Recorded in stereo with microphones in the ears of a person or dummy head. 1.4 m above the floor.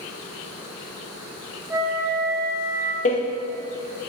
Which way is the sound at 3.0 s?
40° left (ahead or behind).